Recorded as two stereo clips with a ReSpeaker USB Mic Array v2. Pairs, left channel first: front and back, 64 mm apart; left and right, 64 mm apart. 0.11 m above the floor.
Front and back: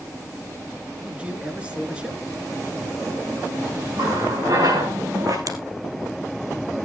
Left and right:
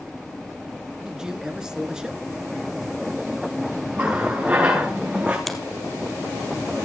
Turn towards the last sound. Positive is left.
turn(degrees=175)